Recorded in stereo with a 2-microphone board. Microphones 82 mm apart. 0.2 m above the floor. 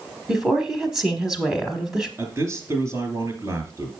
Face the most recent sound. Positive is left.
turn(degrees=-35)  # may be behind; listen again after turning